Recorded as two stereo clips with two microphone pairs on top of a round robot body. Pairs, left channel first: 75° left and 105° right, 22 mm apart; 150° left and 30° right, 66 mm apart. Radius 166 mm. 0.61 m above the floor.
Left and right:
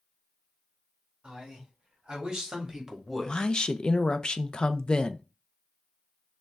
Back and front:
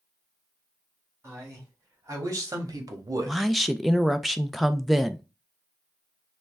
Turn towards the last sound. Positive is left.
turn(degrees=55)